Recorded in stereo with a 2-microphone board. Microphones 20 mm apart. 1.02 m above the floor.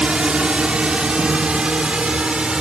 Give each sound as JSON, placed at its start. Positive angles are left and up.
{"t": 0.0, "sound": "a drone", "side_deg": -70}